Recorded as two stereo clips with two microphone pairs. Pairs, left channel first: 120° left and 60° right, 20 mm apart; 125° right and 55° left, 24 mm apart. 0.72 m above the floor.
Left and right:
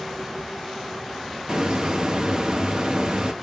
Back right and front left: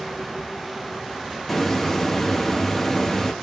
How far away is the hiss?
About 1.0 m.